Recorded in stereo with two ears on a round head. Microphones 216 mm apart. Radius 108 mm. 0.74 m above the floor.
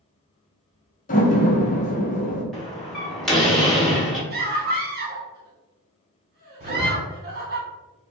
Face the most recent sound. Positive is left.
turn(degrees=-35)  # may be behind; listen again after turning